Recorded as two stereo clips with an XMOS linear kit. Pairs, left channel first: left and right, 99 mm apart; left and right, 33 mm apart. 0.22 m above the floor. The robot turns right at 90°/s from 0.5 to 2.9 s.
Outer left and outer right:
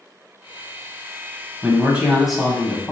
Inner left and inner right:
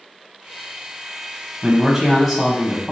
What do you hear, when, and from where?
1.6 s a man speaking: 20° right (ahead or behind), 1.1 m; by 2.9 s 15° left (ahead or behind), 1.1 m